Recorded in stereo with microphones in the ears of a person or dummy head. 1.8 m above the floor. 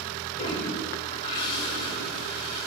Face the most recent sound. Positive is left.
turn(degrees=30)  # may be behind; listen again after turning